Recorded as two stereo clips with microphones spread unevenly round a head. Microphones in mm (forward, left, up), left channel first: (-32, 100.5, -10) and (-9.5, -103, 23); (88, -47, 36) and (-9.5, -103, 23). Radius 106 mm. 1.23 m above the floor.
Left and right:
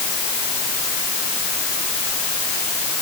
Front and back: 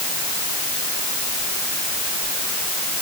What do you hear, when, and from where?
Only background noise.